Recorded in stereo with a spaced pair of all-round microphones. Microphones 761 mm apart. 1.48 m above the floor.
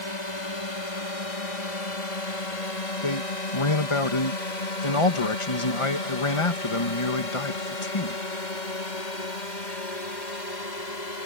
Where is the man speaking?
40° left (ahead or behind).